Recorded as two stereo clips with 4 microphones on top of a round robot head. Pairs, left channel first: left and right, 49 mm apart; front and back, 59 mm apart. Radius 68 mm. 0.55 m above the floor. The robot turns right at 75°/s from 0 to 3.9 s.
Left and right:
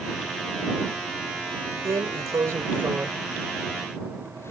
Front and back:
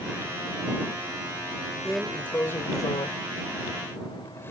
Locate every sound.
1.9 s a drawer: 105° right; by 4.5 s 50° left